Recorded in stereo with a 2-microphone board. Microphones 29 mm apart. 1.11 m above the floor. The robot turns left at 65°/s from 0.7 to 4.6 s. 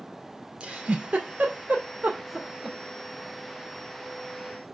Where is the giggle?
35° right (ahead or behind), 2.5 m; by 2.8 s 10° right (ahead or behind), 2.5 m.